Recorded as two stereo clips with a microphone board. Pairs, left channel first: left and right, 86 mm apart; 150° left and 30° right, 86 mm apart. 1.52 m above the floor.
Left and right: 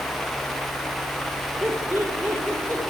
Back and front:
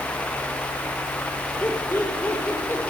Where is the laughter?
150° right, 5 m; by 2.8 s 145° right, 4.5 m.